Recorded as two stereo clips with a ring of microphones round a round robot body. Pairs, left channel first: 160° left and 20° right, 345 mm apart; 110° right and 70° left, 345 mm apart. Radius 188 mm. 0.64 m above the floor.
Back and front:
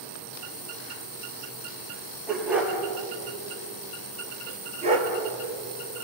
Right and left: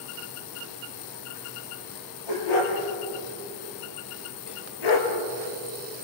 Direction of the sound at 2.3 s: 110° right.